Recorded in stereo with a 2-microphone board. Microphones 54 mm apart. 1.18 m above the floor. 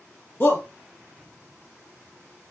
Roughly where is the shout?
Left.